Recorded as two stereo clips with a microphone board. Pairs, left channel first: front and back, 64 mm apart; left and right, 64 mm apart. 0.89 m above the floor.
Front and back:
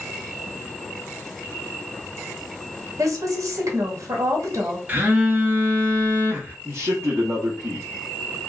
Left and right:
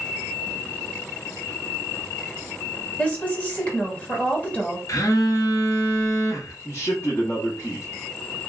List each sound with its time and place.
3.0 s a woman speaking: 155° left, 1.2 m
4.9 s a phone buzzing: 120° left, 0.8 m
6.7 s a man speaking: 130° left, 0.9 m